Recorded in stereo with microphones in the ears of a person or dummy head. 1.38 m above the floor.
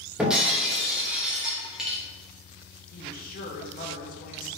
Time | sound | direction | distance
0.2 | breaking glass | 5° right (ahead or behind) | 1.0 m
2.9 | a woman speaking | 45° left (ahead or behind) | 0.7 m